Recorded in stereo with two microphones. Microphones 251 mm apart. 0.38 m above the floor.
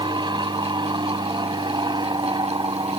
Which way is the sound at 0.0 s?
15° right (ahead or behind).